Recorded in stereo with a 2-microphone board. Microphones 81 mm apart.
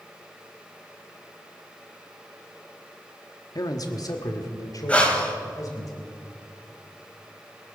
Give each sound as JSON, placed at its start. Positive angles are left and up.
{"t": 3.5, "sound": "a man speaking", "side_deg": 50, "distance_m": 1.2}
{"t": 4.9, "sound": "breathing", "side_deg": 15, "distance_m": 2.0}